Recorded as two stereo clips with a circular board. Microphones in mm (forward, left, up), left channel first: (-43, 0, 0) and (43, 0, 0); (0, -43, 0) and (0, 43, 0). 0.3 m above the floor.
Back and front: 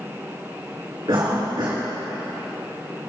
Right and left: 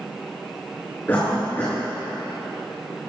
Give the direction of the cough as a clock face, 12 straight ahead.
1 o'clock.